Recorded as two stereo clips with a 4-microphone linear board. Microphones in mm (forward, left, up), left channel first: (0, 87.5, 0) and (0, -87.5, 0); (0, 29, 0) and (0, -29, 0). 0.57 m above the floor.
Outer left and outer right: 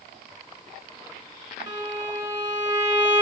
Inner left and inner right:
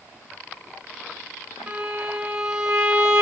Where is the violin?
20° right (ahead or behind), 1.3 m.